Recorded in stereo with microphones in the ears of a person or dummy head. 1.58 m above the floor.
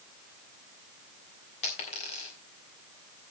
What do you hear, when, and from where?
1.6 s a dropped coin: 35° left (ahead or behind), 1.5 m